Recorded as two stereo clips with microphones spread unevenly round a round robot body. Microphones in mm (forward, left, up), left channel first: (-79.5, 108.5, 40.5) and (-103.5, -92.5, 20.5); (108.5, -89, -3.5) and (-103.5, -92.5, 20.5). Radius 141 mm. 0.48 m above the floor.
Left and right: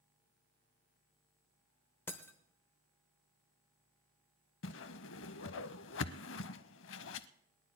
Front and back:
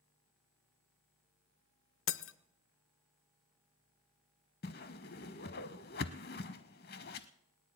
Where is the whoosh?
60° left, 0.5 m.